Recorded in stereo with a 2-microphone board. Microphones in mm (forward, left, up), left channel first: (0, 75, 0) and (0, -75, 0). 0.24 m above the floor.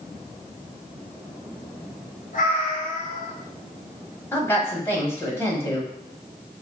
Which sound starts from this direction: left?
A cat meowing, at 2.3 s.